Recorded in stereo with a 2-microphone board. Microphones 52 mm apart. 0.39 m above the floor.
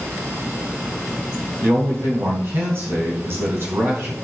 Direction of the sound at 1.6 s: 50° right (ahead or behind).